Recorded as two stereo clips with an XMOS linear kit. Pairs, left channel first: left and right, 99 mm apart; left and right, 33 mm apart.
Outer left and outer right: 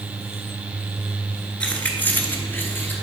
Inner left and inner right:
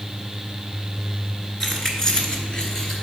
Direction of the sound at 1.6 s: 10° left (ahead or behind).